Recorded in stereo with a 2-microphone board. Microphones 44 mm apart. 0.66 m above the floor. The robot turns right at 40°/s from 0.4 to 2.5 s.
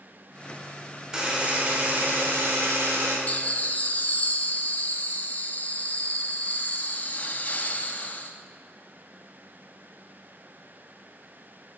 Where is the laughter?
35° left (ahead or behind), 0.6 m.